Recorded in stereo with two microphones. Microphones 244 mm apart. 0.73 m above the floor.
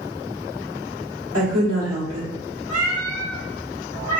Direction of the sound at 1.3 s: 75° right (ahead or behind).